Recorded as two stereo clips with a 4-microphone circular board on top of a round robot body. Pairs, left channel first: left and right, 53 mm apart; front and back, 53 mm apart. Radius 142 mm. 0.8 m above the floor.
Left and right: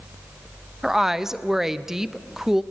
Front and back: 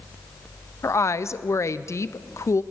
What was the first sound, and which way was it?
A woman speaking, 10° right.